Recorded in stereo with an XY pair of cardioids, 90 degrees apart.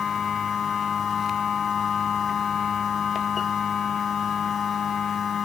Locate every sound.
0.0 s a machine running: 50° left